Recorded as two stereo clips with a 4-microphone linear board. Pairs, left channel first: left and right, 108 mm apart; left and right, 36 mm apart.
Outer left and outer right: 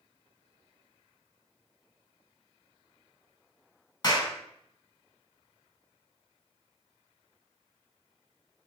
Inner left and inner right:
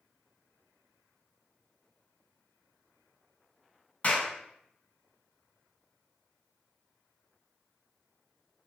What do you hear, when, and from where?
4.0 s a clap: 40° left (ahead or behind), 1.6 m